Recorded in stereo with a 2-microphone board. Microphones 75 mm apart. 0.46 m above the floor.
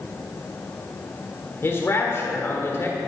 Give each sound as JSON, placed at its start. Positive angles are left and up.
{"t": 1.6, "sound": "a man speaking", "side_deg": 35, "distance_m": 1.7}